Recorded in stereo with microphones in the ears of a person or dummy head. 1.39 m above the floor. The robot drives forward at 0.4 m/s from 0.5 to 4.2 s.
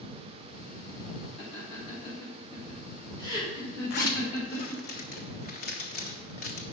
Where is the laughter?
35° left (ahead or behind), 2.5 m; by 4.9 s 25° left (ahead or behind), 3.5 m.